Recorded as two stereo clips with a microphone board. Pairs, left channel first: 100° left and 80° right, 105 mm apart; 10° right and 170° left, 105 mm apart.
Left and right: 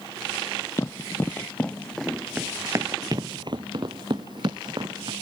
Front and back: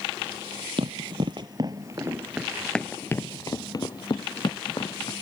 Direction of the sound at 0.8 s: 155° left.